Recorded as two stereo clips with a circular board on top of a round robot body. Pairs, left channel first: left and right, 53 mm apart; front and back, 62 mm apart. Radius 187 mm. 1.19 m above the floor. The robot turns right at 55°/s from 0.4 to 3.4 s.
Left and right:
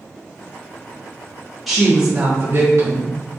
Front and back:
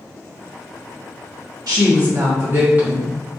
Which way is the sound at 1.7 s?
Straight behind.